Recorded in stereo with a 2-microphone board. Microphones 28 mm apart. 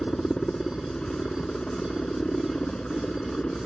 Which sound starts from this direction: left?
A helicopter, at 0.0 s.